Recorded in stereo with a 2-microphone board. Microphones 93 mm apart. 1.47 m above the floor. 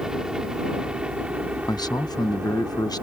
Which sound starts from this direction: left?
A man speaking, at 1.7 s.